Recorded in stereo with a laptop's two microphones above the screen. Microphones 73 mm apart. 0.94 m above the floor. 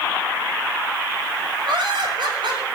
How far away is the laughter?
About 6 m.